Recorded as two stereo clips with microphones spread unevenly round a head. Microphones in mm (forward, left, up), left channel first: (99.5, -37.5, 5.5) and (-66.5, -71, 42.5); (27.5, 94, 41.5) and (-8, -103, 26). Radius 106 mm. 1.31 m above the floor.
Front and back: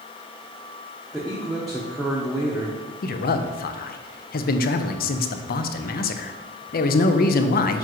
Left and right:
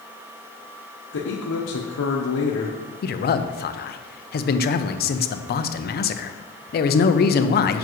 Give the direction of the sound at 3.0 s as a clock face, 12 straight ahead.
11 o'clock.